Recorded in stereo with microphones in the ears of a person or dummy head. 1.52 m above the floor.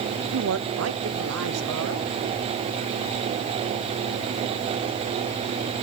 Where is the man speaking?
70° right (ahead or behind), 0.6 m; by 2.2 s 80° right, 1.8 m.